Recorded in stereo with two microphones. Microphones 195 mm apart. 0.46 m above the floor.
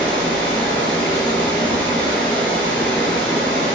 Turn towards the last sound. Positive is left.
turn(degrees=5)  # may be behind; listen again after turning